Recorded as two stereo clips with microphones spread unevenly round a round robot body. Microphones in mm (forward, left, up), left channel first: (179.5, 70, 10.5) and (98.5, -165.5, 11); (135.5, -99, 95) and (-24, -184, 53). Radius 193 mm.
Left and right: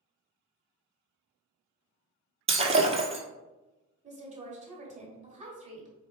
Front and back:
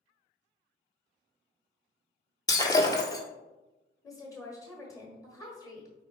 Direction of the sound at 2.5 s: 40° right.